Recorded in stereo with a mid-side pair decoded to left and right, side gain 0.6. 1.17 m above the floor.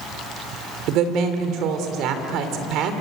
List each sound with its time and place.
0.9 s a woman speaking: 65° right, 3.5 m